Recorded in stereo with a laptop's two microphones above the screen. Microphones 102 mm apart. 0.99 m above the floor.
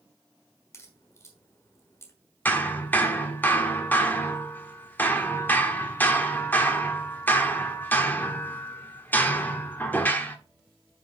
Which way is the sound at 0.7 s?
30° left (ahead or behind).